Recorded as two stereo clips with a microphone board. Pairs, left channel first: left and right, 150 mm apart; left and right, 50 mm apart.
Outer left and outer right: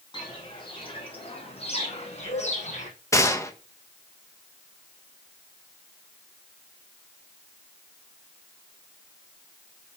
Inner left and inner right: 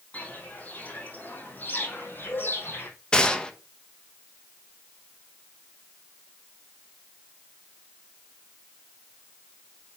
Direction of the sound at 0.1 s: 30° left (ahead or behind).